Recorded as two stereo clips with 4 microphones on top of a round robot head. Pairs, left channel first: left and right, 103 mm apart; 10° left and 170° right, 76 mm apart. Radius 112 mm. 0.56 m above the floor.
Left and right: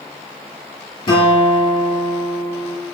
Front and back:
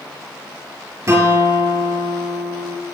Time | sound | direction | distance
1.1 | a guitar | 140° left | 6 m